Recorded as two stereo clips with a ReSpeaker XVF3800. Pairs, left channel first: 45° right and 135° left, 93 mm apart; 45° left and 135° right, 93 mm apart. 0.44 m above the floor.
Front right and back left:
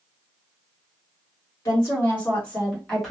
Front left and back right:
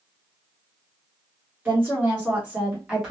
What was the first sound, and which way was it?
A woman speaking, 80° right.